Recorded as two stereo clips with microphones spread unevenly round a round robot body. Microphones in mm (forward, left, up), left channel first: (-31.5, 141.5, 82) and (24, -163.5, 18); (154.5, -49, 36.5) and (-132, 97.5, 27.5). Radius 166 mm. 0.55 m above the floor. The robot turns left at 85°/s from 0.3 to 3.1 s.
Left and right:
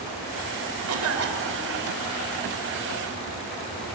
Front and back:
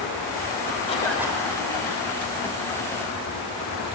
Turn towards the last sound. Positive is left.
turn(degrees=75)